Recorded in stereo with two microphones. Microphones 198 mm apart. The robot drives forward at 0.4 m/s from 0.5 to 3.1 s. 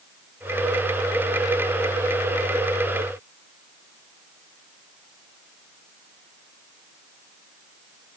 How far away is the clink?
No clink in this recording.